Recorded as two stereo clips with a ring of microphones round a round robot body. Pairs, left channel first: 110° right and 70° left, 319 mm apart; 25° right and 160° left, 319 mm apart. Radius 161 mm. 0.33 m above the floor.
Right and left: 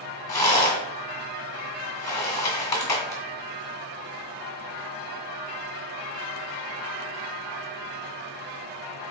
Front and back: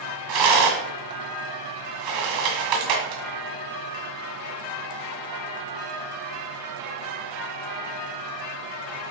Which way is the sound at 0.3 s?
165° left.